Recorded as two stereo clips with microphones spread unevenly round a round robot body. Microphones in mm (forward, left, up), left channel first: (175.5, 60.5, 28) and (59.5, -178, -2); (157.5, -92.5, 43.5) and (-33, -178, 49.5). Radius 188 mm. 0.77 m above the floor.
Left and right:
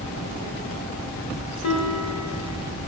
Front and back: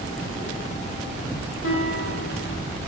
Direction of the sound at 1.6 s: 35° left.